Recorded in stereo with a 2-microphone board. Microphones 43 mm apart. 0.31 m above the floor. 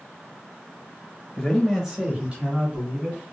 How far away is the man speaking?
About 1.1 m.